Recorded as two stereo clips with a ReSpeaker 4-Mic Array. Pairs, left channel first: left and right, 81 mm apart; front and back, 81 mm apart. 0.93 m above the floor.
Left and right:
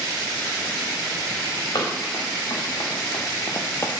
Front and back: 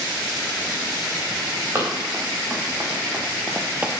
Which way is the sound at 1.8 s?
125° left.